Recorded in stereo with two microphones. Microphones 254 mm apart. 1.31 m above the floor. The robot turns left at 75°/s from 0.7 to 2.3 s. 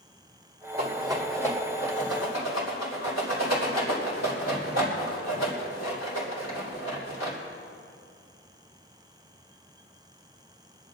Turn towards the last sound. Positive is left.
turn(degrees=75)  # may be behind; listen again after turning